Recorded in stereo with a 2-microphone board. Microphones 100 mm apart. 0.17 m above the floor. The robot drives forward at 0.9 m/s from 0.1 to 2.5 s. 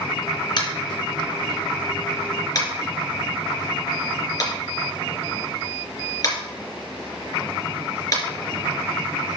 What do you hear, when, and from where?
0.6 s tapping: 50° left (ahead or behind), 2.5 m; by 8.2 s 40° left (ahead or behind), 3 m